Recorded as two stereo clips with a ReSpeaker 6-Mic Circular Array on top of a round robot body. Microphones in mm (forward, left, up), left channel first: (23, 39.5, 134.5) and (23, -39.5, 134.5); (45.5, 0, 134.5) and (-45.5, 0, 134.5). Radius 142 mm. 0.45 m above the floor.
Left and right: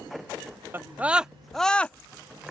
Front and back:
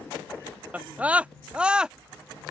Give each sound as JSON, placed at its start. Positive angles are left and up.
{"t": 0.7, "sound": "a scream", "azimuth_deg": -120}